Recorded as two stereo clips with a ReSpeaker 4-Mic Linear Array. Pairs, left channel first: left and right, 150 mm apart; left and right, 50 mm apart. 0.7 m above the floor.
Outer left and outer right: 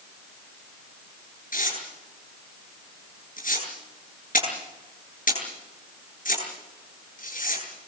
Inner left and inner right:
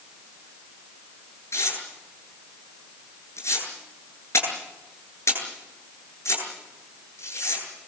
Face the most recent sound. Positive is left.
turn(degrees=65)  # may be behind; listen again after turning